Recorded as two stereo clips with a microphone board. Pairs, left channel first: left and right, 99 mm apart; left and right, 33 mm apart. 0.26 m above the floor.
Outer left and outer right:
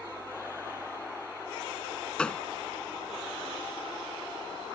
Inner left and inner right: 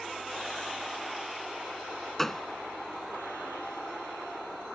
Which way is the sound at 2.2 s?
10° left (ahead or behind).